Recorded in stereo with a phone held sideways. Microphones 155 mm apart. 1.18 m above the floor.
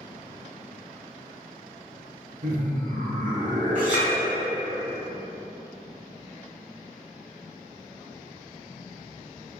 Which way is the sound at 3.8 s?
55° right (ahead or behind).